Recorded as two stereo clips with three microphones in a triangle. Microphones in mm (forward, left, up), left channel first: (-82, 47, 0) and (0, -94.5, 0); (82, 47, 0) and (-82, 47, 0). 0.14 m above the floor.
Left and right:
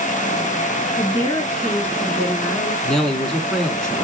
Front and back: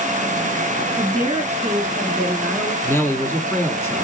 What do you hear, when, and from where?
1.0 s a woman speaking: 175° left, 1.4 m; by 2.7 s 40° left, 1.4 m
2.8 s a man speaking: 40° left, 1.1 m